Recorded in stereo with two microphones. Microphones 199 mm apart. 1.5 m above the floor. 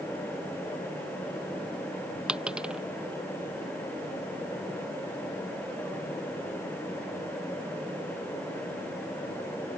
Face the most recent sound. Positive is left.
turn(degrees=-5)  # may be behind; listen again after turning